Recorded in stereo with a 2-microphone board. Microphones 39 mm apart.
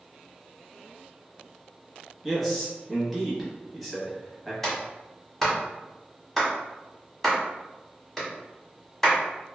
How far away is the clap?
About 1.2 m.